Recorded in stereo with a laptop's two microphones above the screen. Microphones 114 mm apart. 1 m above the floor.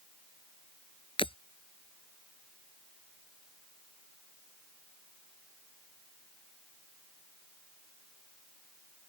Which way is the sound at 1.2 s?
50° left (ahead or behind).